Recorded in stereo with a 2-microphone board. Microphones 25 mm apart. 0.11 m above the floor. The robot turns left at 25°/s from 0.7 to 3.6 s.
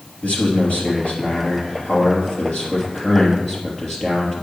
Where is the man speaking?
85° left, 2.5 m; by 4.4 s 15° left, 2.5 m.